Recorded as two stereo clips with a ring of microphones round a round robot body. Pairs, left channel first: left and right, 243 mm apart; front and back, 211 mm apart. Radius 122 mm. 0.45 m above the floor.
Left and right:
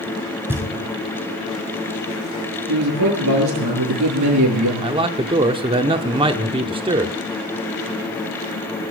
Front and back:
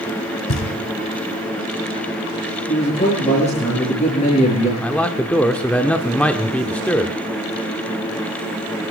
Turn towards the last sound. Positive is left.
turn(degrees=-75)